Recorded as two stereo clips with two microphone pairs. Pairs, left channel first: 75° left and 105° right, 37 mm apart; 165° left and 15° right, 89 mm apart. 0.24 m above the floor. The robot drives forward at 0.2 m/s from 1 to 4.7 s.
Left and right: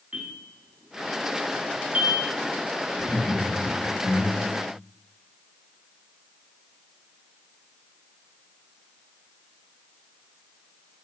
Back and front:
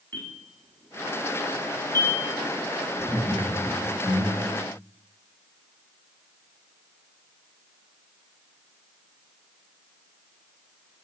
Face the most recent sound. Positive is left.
turn(degrees=135)